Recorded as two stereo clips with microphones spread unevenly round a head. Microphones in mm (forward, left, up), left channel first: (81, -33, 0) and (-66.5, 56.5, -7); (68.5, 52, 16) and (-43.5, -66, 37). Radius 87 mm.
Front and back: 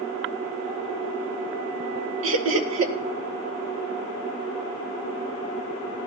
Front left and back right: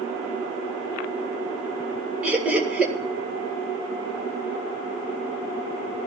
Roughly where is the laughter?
Behind left.